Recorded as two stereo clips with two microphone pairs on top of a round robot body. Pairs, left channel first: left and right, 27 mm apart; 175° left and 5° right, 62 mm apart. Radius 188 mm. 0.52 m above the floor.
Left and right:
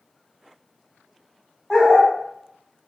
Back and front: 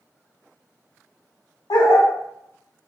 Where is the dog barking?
175° left, 0.6 m.